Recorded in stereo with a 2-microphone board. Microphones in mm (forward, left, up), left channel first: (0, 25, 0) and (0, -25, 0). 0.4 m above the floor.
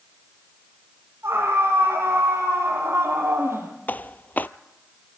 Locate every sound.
1.2 s a scream: 75° right (ahead or behind), 10 m
3.9 s footsteps: 40° left (ahead or behind), 0.5 m